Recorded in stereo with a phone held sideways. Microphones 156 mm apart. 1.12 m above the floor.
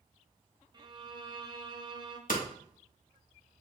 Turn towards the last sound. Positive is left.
turn(degrees=70)  # may be behind; listen again after turning